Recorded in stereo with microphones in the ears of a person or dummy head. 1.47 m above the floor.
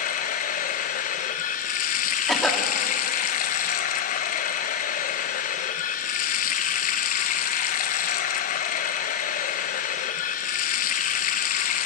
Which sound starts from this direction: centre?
A cough, at 2.3 s.